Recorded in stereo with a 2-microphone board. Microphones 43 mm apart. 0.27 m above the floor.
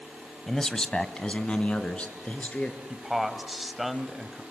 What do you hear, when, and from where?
0.5 s a man speaking: 5° left (ahead or behind), 1.2 m; by 2.8 s 30° left (ahead or behind), 4 m
2.9 s a man speaking: centre (ahead or behind), 1.6 m